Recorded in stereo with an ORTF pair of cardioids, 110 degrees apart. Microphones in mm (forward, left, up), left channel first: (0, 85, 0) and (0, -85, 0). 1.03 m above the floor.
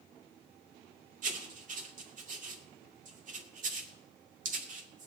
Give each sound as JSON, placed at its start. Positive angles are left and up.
{"t": 1.2, "sound": "writing", "azimuth_deg": -45, "distance_m": 2.0}